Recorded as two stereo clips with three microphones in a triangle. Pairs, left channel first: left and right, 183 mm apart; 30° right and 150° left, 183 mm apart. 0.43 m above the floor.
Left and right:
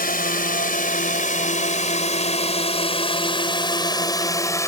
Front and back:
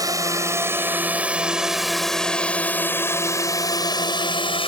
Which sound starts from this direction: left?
A drone, at 0.0 s.